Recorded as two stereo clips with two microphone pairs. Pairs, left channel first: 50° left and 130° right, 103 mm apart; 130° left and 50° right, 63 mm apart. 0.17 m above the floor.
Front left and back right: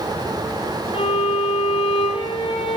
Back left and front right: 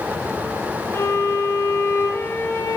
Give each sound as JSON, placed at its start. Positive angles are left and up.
{"t": 0.9, "sound": "a violin", "azimuth_deg": 80, "distance_m": 4.5}